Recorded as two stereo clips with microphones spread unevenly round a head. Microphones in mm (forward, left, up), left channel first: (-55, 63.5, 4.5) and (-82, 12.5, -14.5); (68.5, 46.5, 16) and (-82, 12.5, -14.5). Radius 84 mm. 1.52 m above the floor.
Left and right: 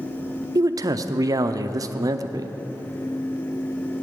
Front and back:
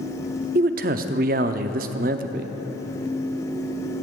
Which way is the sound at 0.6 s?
130° right.